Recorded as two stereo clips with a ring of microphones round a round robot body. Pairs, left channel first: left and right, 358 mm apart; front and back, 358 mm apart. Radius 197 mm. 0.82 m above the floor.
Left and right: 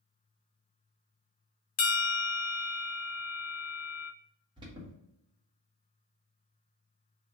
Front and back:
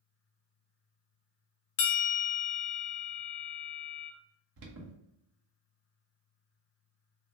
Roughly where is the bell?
Ahead left.